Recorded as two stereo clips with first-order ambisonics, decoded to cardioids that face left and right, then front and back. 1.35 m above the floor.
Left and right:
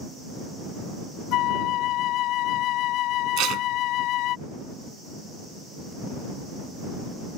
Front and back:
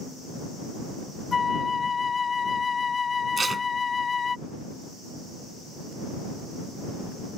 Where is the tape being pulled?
110° right.